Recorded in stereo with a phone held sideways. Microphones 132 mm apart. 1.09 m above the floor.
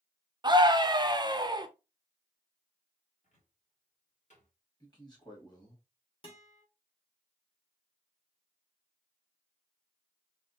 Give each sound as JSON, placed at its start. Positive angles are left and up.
{"t": 0.4, "sound": "a scream", "side_deg": -30, "distance_m": 0.6}
{"t": 3.2, "sound": "a cupboard door", "side_deg": 60, "distance_m": 1.9}
{"t": 4.8, "sound": "a man speaking", "side_deg": 30, "distance_m": 1.9}
{"t": 6.2, "sound": "a guitar", "side_deg": 40, "distance_m": 1.3}